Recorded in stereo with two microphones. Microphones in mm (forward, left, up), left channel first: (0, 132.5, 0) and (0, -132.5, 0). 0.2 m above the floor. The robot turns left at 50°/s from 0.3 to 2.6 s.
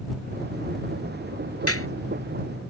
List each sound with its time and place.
1.7 s a clap: 60° left (ahead or behind); by 1.9 s 55° left (ahead or behind)